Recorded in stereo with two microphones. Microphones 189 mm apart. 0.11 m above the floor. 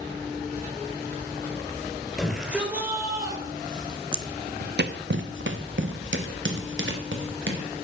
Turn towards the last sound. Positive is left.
turn(degrees=-80)